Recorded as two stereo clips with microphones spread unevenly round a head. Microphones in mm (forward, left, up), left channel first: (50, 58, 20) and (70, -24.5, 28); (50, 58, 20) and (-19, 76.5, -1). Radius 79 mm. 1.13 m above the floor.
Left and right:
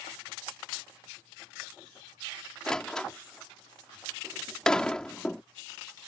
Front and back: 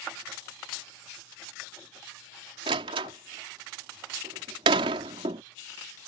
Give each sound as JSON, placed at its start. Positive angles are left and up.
{"t": 2.7, "sound": "a door slam", "azimuth_deg": -170}